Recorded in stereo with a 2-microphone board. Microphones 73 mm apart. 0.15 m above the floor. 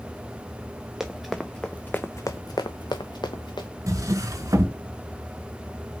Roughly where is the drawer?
Right.